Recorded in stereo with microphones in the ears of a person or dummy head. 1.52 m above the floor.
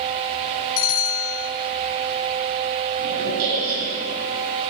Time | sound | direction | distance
0.8 | a bell | 50° left (ahead or behind) | 0.6 m
3.0 | a squeak | 60° right (ahead or behind) | 3 m